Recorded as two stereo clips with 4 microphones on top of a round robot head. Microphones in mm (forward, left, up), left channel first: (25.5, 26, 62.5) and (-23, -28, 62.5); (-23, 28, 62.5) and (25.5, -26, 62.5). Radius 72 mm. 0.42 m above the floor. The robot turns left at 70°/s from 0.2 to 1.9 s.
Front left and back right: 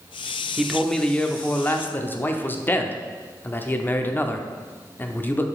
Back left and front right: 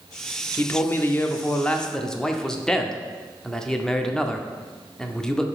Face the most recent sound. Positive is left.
turn(degrees=60)